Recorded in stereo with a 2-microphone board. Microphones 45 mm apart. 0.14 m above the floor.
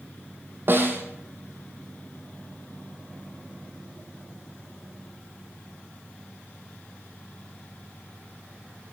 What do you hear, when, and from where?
0.7 s a snare drum: 50° right (ahead or behind), 2.5 m